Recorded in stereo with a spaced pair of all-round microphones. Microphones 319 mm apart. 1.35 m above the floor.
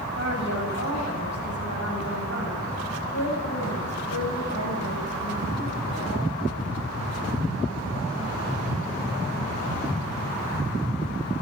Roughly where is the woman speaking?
Left.